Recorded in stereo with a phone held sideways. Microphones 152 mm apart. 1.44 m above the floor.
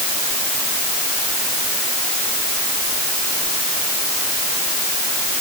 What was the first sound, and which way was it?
Only background noise.